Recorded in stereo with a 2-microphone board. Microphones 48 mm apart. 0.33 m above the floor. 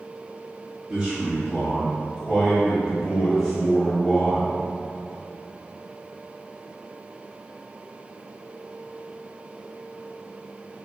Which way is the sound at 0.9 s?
30° right (ahead or behind).